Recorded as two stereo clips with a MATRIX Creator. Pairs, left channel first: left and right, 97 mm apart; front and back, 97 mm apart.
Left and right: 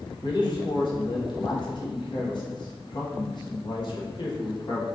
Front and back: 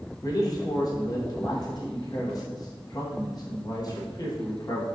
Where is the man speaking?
50° left, 1.3 m.